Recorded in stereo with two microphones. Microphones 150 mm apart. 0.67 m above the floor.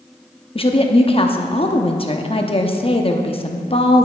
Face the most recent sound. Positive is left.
turn(degrees=35)  # may be behind; listen again after turning